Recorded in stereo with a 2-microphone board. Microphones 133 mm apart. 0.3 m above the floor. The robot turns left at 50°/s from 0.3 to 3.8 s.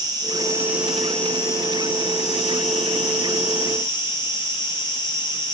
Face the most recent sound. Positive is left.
turn(degrees=40)